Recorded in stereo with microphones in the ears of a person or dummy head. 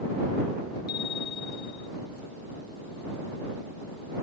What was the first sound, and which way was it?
A bicycle bell, 45° left (ahead or behind).